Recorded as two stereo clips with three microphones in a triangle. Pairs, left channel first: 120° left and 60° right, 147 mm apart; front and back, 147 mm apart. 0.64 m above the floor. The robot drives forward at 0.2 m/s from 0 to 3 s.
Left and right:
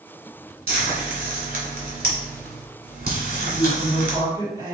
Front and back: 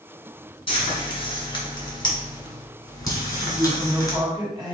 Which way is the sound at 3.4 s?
120° right.